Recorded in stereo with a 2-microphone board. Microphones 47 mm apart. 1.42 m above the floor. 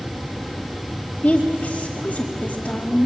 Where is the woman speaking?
25° left (ahead or behind), 2.5 m.